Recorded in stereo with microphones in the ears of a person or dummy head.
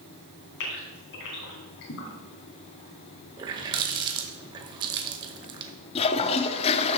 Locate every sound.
0.6 s a gasp: 60° left (ahead or behind), 3 m
3.4 s a running tap: 30° right (ahead or behind), 0.9 m
6.0 s a toilet flushing: 25° left (ahead or behind), 0.5 m